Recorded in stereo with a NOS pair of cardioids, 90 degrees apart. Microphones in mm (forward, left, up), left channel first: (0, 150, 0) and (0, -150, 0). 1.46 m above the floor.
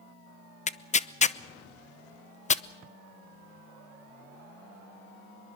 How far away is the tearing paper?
About 0.7 m.